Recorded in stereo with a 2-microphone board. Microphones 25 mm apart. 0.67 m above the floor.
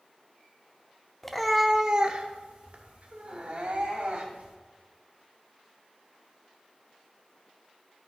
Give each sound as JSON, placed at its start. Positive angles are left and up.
{"t": 1.2, "sound": "a cat meowing", "side_deg": 15, "distance_m": 0.7}